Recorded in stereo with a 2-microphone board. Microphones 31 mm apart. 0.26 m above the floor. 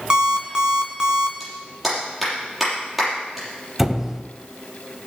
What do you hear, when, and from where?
0.1 s an alarm clock: 25° right (ahead or behind), 1.7 m
1.4 s a clap: 5° right (ahead or behind), 6 m
3.8 s a squeak: 10° right (ahead or behind), 0.8 m